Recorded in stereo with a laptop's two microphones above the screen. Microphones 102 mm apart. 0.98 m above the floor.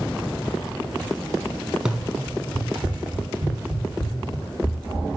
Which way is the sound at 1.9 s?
10° right (ahead or behind).